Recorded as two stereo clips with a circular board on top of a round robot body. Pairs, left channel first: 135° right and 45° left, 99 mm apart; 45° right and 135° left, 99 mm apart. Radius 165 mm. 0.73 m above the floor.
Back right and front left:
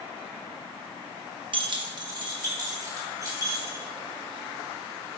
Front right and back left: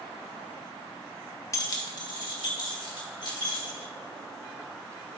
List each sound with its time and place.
1.5 s keys jangling: 15° left, 1.1 m; by 3.9 s 10° right, 4.5 m